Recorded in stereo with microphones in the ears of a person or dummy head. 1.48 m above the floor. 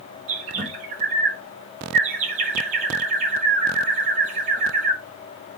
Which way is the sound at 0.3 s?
35° right (ahead or behind).